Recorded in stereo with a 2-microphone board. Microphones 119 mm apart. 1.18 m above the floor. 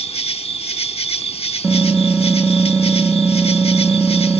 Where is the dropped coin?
I don't hear a dropped coin.